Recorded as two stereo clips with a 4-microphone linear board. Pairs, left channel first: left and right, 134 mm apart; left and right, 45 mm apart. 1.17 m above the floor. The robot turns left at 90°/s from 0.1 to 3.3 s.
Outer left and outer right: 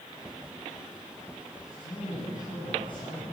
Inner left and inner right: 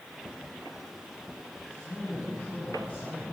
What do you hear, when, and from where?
1.7 s a man speaking: 150° left, 9 m; by 3.3 s straight ahead, 9 m